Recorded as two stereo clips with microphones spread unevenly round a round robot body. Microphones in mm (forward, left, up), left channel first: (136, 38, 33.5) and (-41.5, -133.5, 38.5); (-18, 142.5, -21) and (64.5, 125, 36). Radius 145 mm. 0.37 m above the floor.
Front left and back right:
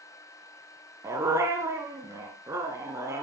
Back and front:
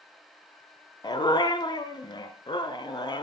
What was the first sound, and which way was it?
A dog barking, 145° left.